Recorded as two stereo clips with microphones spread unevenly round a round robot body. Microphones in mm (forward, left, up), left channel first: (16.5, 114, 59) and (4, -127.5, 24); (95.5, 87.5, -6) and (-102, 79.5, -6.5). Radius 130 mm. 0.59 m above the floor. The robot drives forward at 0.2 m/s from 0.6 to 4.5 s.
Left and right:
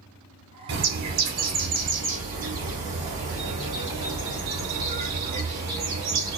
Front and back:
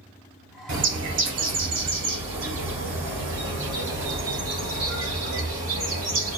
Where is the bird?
145° right, 0.8 m; by 6.4 s 160° right, 1.5 m.